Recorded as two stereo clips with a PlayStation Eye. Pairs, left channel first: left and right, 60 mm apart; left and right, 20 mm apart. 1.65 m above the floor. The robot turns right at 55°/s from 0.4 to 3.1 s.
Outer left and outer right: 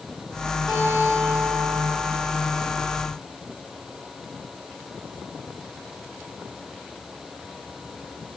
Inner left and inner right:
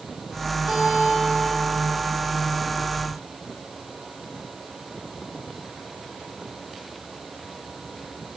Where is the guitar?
10° right, 4.5 m; by 2.0 s 65° left, 4.5 m.